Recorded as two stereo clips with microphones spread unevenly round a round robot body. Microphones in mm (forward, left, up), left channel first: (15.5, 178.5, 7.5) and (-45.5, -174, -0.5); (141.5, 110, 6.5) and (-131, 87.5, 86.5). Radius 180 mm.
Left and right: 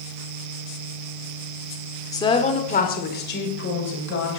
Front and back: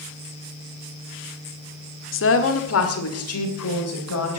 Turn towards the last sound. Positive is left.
turn(degrees=25)